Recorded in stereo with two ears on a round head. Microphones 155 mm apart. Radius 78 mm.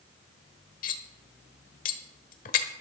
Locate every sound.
0.8 s cutlery clinking: 50° left (ahead or behind), 1.2 m